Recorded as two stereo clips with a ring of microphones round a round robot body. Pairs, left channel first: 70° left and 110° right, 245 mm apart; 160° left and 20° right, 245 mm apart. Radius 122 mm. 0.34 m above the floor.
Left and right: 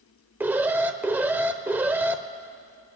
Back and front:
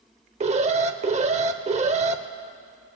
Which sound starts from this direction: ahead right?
An alarm, at 0.4 s.